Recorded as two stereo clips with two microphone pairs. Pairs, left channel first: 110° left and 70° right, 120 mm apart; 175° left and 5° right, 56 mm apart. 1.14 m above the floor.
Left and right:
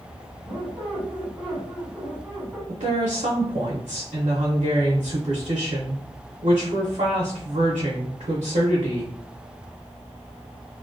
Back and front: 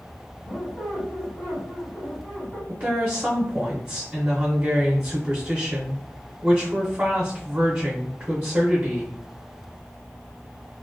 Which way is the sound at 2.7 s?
60° right.